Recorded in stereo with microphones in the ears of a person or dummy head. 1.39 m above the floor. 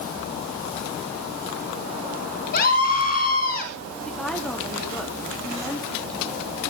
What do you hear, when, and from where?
2.5 s a scream: 60° left (ahead or behind), 3 m
4.0 s a woman speaking: centre (ahead or behind), 3 m